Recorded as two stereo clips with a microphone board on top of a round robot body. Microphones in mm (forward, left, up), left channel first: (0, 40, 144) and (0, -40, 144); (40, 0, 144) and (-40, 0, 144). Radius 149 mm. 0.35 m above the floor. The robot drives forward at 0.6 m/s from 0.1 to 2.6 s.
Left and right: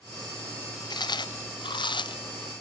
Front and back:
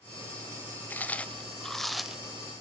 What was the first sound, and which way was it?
Chewing, 65° left.